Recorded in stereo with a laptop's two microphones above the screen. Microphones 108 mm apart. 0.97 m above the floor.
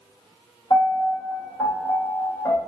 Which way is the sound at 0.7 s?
35° left (ahead or behind).